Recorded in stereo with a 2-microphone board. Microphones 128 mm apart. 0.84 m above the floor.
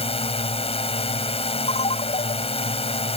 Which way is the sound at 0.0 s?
50° left (ahead or behind).